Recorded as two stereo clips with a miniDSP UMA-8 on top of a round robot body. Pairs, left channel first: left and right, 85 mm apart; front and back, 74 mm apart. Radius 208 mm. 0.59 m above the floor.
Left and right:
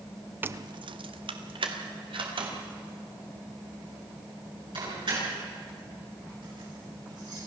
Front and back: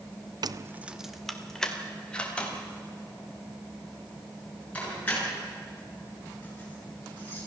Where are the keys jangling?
155° right, 0.6 m; by 7.4 s 65° right, 11 m.